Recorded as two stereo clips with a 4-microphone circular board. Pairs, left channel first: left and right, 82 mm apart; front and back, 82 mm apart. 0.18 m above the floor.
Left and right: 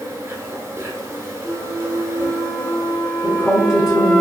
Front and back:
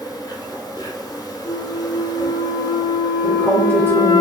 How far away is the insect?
About 0.8 m.